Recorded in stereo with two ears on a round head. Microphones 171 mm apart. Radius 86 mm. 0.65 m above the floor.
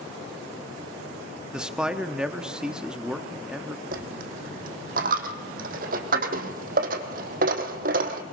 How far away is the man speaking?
About 0.8 m.